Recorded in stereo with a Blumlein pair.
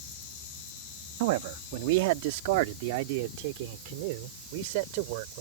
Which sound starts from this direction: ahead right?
A man speaking, at 1.2 s.